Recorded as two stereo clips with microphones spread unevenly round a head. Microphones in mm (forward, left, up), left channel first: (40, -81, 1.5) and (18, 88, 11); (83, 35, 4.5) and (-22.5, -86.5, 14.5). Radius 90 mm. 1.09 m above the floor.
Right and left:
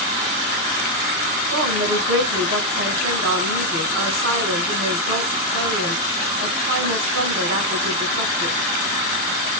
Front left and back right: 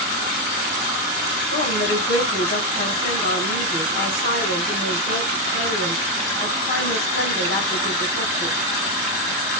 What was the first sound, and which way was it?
A woman speaking, 105° left.